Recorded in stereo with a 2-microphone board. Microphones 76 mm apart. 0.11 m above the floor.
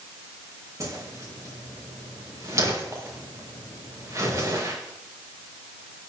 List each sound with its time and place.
0.8 s a whoosh: 45° right (ahead or behind), 5 m